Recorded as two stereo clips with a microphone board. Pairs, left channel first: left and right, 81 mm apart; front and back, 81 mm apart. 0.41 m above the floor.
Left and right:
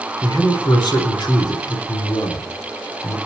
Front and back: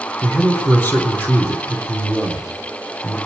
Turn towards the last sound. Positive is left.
turn(degrees=65)